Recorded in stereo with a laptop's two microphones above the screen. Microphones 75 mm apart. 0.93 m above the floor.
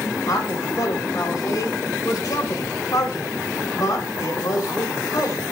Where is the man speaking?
55° left (ahead or behind), 3.5 m.